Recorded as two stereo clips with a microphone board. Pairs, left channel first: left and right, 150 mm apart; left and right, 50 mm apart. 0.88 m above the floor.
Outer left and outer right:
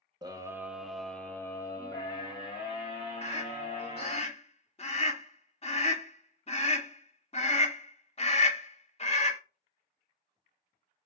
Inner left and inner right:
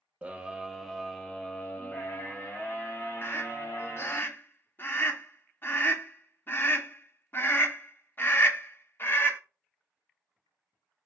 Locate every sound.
0.2 s a scream: 25° right (ahead or behind), 0.8 m; by 4.2 s 40° left (ahead or behind), 2.5 m
3.2 s a scream: 40° left (ahead or behind), 0.6 m